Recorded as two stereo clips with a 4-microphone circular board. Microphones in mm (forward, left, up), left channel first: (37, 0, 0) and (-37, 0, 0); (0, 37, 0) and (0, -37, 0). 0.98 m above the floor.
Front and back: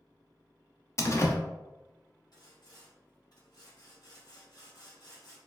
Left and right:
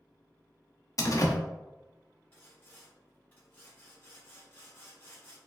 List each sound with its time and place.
1.0 s a door slam: 50° left, 0.5 m
2.3 s sawing: 30° left, 1.9 m